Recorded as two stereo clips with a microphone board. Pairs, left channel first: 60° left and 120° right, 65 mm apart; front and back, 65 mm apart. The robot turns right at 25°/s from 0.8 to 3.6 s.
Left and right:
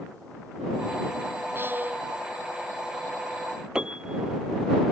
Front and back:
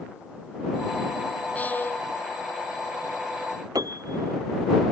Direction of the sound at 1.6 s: 65° right.